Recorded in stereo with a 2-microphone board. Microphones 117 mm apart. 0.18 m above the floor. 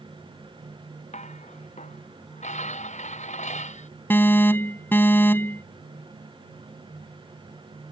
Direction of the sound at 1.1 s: 85° left.